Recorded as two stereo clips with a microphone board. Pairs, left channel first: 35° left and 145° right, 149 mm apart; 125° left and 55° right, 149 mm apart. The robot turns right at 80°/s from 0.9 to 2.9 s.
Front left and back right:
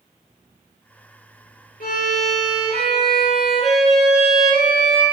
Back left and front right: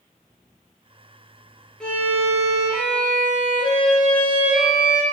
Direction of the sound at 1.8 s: 40° left.